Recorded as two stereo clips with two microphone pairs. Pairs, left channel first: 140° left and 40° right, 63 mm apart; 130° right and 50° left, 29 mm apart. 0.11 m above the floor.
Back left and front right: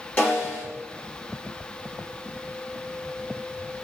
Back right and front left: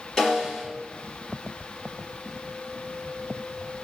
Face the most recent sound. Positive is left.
turn(degrees=180)